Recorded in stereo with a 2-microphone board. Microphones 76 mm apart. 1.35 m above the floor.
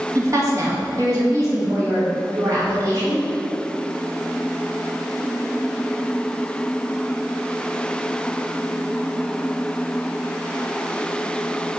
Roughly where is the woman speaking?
Right.